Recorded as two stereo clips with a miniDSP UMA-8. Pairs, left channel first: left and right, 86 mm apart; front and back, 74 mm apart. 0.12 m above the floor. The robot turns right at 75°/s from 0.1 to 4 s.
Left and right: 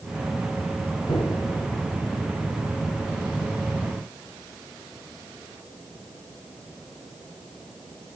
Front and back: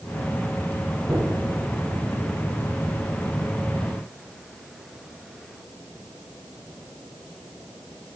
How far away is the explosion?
About 7 m.